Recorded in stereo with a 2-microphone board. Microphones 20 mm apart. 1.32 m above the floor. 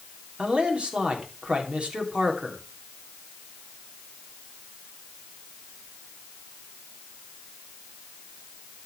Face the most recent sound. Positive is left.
turn(degrees=-85)